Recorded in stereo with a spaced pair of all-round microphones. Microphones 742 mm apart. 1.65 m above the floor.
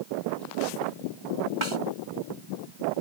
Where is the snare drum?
40° right (ahead or behind).